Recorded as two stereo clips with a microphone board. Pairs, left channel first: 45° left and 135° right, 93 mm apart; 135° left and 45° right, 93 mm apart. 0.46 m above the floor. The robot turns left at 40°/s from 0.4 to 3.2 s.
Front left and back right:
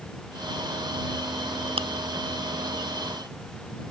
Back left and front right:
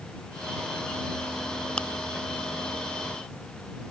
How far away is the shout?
I don't hear a shout.